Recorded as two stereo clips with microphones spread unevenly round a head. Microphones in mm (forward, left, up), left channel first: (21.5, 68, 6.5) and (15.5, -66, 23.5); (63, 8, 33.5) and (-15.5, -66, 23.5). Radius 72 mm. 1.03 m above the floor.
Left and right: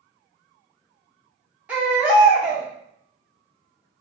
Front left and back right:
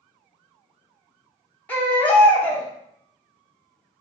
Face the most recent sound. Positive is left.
turn(degrees=-25)